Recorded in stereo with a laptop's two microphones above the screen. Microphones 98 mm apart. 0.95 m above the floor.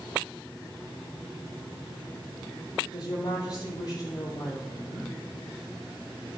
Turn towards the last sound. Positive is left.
turn(degrees=45)  # may be behind; listen again after turning